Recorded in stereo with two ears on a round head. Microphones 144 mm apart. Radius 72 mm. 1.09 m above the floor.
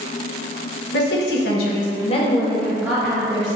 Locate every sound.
0.9 s a woman speaking: 75° left (ahead or behind), 1.1 m; by 3.6 s 30° right (ahead or behind), 1.0 m